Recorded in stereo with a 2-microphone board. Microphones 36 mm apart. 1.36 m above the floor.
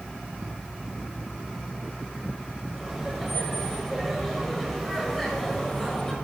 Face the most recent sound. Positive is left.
turn(degrees=15)  # may be behind; listen again after turning